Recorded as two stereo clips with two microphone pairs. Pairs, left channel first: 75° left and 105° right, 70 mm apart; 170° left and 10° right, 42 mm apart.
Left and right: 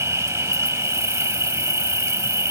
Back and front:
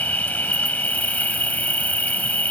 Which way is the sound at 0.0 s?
145° right.